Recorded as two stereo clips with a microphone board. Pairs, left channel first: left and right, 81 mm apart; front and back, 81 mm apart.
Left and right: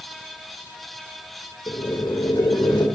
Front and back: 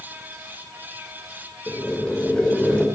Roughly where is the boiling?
Left.